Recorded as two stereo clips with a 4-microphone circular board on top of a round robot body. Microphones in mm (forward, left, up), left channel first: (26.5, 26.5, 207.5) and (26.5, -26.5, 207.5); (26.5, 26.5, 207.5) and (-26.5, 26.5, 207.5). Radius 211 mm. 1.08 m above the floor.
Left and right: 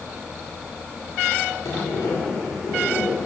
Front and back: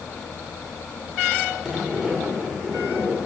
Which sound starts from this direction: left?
A sliding door, at 1.6 s.